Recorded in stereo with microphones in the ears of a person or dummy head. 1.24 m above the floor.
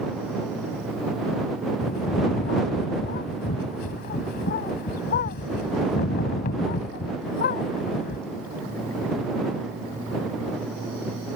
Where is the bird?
45° left (ahead or behind).